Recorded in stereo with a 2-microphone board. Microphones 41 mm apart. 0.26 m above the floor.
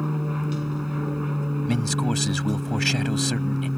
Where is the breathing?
I don't hear breathing.